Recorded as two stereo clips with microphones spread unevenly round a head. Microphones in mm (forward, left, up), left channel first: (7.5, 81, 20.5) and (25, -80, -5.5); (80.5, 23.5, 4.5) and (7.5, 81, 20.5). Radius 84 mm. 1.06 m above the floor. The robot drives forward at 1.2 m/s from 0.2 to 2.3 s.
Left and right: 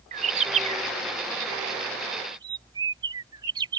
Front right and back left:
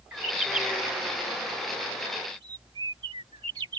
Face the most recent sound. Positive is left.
turn(degrees=-150)